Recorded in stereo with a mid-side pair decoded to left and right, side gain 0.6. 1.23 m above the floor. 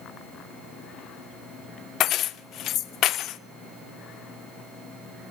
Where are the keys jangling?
60° left, 0.5 m.